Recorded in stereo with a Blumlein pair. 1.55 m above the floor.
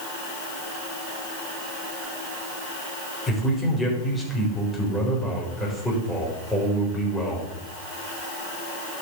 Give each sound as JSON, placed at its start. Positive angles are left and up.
{"t": 3.3, "sound": "a man speaking", "azimuth_deg": 5, "distance_m": 6.5}